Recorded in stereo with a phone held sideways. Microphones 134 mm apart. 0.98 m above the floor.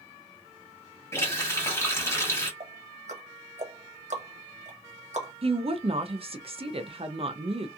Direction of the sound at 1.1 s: 20° left (ahead or behind).